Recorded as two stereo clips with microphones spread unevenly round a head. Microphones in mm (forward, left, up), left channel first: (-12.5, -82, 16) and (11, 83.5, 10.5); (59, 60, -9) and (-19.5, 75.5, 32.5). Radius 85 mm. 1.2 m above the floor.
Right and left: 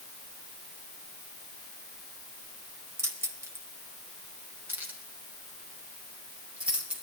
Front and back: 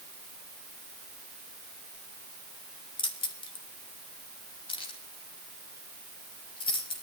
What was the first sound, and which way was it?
Keys jangling, 5° left.